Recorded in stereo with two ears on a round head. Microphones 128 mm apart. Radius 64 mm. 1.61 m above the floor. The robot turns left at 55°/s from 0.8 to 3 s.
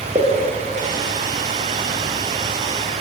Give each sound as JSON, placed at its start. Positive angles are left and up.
{"t": 0.1, "sound": "a pop", "side_deg": -20, "distance_m": 0.7}